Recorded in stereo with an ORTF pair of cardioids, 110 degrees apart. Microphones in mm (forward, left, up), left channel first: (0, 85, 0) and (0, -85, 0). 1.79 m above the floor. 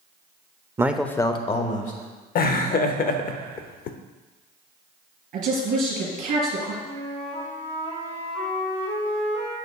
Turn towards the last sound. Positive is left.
turn(degrees=35)